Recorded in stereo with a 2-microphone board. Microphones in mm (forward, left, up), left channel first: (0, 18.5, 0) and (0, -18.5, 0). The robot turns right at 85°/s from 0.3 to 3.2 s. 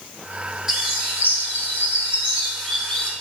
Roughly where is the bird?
Behind.